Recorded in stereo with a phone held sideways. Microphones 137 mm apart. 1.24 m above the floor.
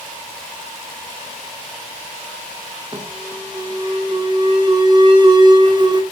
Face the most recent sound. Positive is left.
turn(degrees=-30)  # may be behind; listen again after turning